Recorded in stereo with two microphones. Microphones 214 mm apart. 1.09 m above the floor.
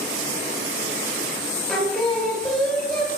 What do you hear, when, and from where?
1.7 s singing: 5° left (ahead or behind), 0.7 m